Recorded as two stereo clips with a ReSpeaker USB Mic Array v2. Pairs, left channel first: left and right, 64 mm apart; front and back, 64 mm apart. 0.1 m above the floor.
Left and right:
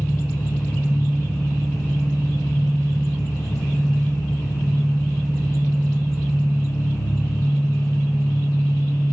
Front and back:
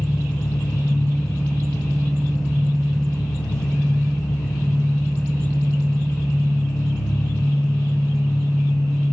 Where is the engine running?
50° left, 9 m.